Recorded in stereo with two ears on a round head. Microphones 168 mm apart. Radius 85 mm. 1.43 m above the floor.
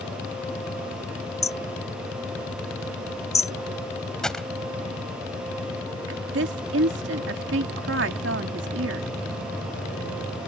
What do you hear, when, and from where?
1.4 s hammering: 20° left (ahead or behind)
4.2 s a gunshot: 5° left (ahead or behind)
6.1 s a woman speaking: 65° right (ahead or behind)